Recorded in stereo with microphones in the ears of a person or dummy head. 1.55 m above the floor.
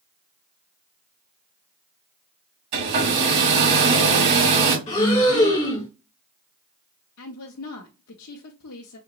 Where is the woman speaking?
80° left, 0.8 m.